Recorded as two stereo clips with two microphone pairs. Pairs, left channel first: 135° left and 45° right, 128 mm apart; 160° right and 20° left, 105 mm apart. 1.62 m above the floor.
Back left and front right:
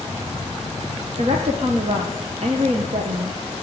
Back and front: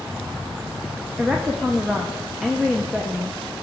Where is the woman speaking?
65° right, 0.9 m.